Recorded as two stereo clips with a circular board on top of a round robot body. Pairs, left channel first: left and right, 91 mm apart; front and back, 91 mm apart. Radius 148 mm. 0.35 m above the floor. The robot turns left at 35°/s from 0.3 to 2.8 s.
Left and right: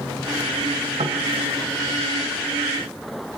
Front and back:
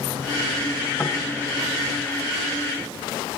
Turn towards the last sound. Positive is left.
turn(degrees=-135)